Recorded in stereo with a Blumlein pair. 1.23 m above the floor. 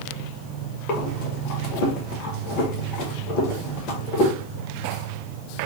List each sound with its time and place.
0.9 s breathing: 35° left, 1.0 m